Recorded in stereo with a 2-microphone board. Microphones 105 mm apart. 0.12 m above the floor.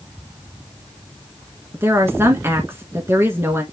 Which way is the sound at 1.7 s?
25° right (ahead or behind).